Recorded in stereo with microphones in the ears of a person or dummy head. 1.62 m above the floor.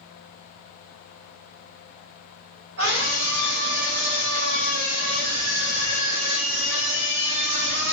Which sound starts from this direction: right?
A scream, at 2.8 s.